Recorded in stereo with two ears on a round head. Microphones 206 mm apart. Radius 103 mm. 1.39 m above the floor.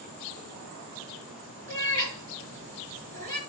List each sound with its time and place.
1.7 s a cat meowing: 35° right (ahead or behind), 5.5 m